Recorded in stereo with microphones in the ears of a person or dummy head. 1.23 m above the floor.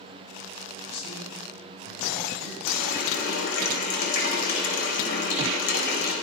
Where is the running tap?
65° left (ahead or behind), 4 m.